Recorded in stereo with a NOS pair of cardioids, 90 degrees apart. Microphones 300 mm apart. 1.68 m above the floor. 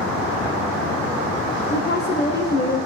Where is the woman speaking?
35° left, 0.8 m.